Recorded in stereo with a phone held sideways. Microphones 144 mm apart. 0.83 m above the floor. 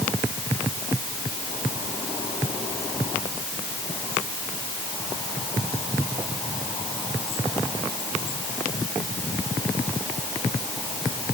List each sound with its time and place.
Only background noise.